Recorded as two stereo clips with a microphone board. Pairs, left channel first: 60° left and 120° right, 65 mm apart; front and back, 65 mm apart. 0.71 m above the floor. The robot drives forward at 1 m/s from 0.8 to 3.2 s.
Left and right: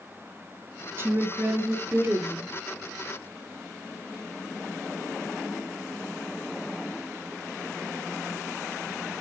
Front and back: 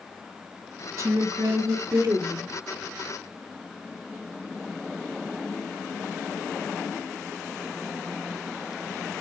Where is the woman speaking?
160° right, 1.0 m; by 2.5 s 175° right, 2.5 m.